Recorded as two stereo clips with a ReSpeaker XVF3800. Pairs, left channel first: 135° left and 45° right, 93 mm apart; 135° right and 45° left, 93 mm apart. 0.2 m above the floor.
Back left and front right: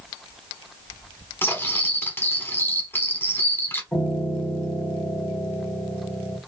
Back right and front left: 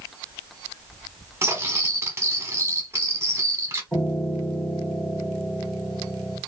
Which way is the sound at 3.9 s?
155° left.